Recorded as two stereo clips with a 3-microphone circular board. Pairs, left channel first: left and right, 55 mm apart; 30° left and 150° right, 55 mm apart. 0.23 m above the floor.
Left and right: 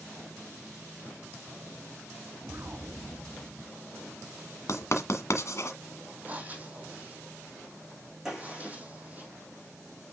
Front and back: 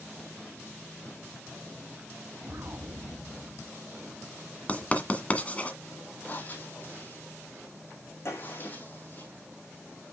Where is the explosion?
125° right, 1.9 m.